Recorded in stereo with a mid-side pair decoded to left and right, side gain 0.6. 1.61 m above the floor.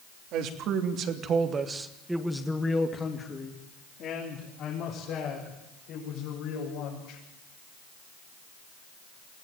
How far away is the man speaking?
About 3 m.